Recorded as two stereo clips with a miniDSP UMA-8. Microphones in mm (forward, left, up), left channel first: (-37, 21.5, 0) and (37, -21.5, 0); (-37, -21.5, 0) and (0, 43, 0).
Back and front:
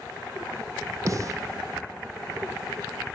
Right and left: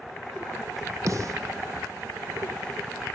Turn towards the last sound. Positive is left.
turn(degrees=20)